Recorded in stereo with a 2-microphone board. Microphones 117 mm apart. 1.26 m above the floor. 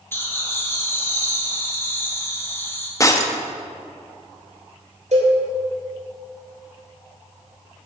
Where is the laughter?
20° left (ahead or behind), 1.8 m.